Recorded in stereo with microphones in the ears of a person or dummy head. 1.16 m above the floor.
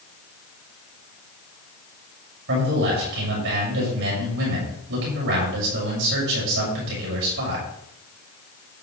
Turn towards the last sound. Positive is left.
turn(degrees=-65)  # may be behind; listen again after turning